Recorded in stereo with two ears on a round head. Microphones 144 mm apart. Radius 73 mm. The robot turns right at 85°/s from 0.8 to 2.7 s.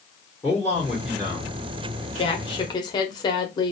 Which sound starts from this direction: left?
A woman speaking, at 2.1 s.